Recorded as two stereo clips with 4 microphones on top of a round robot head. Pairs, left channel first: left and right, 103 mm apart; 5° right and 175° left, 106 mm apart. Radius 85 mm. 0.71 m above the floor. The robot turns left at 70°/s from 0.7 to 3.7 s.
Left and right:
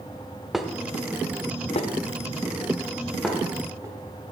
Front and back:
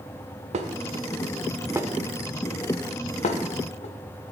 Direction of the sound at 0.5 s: Straight behind.